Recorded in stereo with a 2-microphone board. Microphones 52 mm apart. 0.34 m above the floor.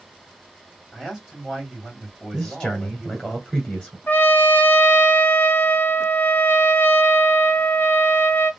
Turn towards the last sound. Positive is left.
turn(degrees=40)  # may be behind; listen again after turning